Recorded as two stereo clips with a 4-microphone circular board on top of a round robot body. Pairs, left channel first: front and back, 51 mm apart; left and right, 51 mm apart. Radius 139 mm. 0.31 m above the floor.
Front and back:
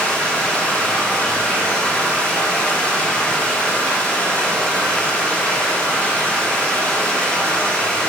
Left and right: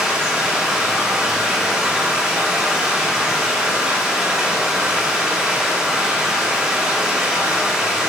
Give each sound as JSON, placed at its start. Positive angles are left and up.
{"t": 0.0, "sound": "running water", "azimuth_deg": -35, "distance_m": 1.1}